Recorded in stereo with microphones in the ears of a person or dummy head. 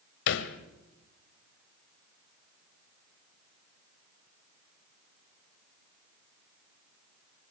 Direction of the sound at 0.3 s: 65° left (ahead or behind).